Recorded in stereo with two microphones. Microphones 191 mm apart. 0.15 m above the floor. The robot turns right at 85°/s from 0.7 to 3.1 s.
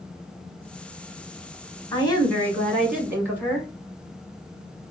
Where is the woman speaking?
25° left (ahead or behind), 1.1 m; by 3.7 s 10° right (ahead or behind), 1.1 m.